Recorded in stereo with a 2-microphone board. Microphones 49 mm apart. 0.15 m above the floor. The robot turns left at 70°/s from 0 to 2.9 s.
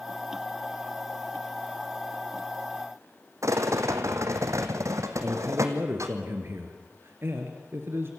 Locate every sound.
3.4 s a rattle: 75° right (ahead or behind), 1.9 m
5.2 s a man speaking: 50° right (ahead or behind), 2.5 m